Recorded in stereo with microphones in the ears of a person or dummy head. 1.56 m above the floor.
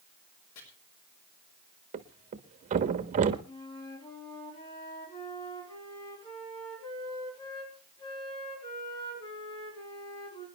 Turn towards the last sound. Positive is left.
turn(degrees=25)  # may be behind; listen again after turning